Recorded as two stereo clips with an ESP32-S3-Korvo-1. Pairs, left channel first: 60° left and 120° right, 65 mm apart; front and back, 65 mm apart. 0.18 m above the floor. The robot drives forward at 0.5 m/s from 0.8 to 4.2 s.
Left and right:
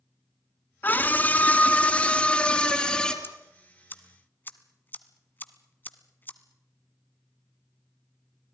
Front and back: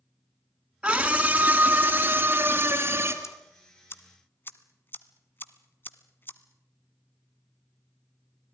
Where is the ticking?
15° left, 1.7 m; by 6.4 s 25° left, 1.3 m.